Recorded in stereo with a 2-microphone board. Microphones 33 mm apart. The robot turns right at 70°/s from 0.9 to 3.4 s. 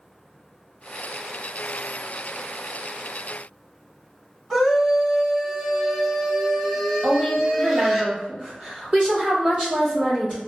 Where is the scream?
15° right (ahead or behind), 1.7 m.